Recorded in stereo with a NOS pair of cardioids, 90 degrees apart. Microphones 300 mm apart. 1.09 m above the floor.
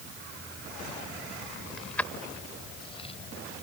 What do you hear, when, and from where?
1.8 s keys jangling: straight ahead; by 3.1 s 20° left